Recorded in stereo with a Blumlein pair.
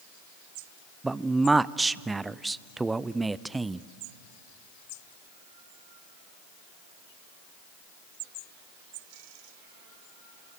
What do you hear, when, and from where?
1.0 s a man speaking: 10° right, 0.5 m